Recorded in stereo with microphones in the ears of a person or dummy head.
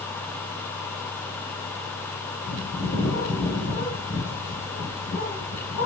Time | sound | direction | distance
2.5 | a bird | 60° left (ahead or behind) | 2.5 m